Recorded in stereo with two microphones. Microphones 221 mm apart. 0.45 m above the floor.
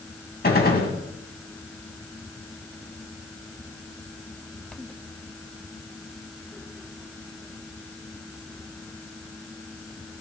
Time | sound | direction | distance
0.4 | a gunshot | 45° left (ahead or behind) | 2 m